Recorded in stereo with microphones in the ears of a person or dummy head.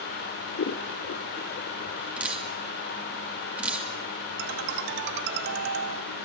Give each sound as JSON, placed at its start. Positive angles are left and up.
{"t": 0.6, "sound": "scissors", "side_deg": 45, "distance_m": 0.8}
{"t": 2.2, "sound": "dripping", "side_deg": -10, "distance_m": 2.5}
{"t": 4.4, "sound": "a ringtone", "side_deg": -65, "distance_m": 1.6}